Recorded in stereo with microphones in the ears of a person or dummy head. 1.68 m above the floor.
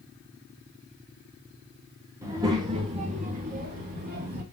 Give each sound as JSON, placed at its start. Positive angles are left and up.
{"t": 2.2, "sound": "a child speaking", "side_deg": -15, "distance_m": 1.1}